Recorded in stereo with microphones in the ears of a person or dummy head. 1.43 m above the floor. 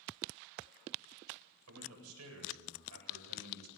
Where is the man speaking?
85° right, 8 m.